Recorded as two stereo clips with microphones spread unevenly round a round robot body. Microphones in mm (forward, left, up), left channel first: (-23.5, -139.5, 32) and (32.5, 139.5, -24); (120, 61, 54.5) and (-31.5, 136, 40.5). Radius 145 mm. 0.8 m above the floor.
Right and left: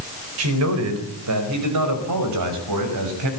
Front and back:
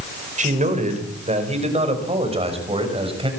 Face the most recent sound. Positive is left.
turn(degrees=95)